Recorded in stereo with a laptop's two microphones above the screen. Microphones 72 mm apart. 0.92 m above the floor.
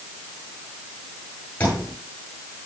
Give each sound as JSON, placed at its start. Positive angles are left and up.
{"t": 1.6, "sound": "a thud", "side_deg": 20, "distance_m": 8.0}